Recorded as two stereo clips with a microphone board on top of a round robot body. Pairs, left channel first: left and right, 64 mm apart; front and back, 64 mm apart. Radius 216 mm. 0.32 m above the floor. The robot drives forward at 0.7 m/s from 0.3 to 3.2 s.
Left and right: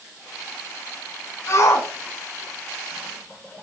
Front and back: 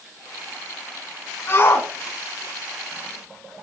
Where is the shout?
45° left, 6 m; by 3.6 s 55° left, 5.5 m.